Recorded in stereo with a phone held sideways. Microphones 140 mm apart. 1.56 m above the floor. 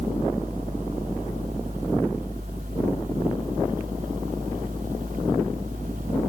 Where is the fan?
80° right.